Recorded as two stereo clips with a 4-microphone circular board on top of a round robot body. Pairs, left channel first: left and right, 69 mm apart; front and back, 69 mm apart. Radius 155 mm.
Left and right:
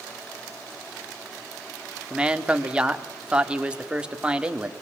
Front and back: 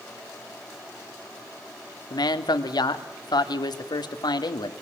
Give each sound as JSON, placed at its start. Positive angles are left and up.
{"t": 2.1, "sound": "a man speaking", "azimuth_deg": -15, "distance_m": 2.5}